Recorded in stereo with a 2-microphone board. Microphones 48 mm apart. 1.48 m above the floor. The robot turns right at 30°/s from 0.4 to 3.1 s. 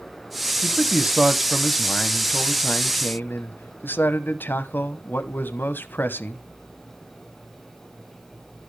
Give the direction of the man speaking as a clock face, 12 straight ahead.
1 o'clock.